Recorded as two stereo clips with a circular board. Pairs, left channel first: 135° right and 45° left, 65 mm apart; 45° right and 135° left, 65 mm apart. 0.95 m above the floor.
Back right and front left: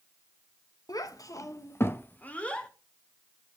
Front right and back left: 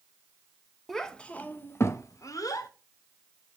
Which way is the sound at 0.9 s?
130° right.